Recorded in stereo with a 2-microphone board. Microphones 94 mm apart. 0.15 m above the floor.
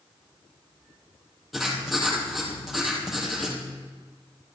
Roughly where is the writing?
Centre.